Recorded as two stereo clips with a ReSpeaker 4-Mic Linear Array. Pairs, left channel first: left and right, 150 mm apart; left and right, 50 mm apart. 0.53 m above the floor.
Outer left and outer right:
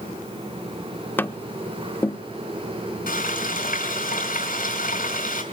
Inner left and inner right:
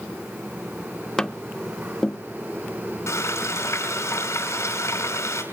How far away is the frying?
About 5 m.